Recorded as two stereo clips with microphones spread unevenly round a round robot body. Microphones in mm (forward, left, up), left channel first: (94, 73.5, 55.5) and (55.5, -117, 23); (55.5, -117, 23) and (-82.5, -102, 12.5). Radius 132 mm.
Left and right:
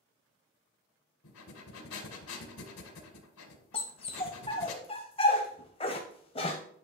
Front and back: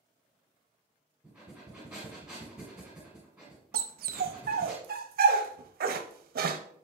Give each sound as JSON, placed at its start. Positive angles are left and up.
{"t": 1.2, "sound": "breathing", "azimuth_deg": 85, "distance_m": 1.9}
{"t": 3.7, "sound": "a dog barking", "azimuth_deg": 150, "distance_m": 0.7}